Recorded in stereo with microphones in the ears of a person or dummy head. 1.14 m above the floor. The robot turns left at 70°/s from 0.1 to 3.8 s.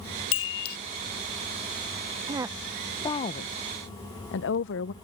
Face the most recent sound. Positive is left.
turn(degrees=65)  # may be behind; listen again after turning